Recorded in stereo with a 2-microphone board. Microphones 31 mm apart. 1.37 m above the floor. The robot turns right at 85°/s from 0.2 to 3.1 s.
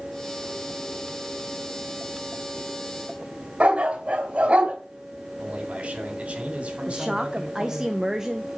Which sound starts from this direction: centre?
A woman speaking, at 6.9 s.